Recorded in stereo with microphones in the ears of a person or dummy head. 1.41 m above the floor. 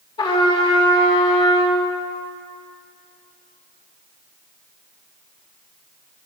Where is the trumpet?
25° left (ahead or behind), 2.5 m.